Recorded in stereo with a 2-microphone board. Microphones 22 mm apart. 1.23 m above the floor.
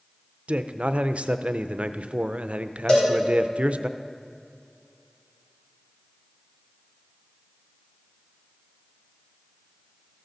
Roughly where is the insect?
I don't hear an insect.